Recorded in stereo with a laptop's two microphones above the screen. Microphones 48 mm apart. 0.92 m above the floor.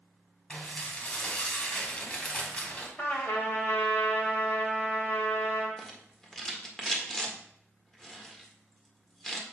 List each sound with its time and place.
0.5 s dishes clattering: 25° left (ahead or behind), 2 m
3.0 s a trumpet: 45° left (ahead or behind), 1.3 m
5.8 s a rattle: 10° left (ahead or behind), 1.6 m